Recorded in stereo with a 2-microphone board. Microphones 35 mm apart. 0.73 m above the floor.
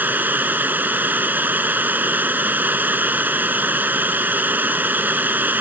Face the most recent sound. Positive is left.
turn(degrees=-65)  # may be behind; listen again after turning